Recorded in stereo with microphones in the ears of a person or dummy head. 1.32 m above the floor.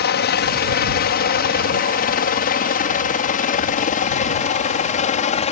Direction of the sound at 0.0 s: 50° left (ahead or behind).